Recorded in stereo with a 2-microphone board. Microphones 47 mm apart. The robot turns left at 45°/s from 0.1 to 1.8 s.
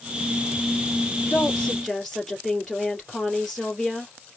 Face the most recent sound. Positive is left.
turn(degrees=5)  # may be behind; listen again after turning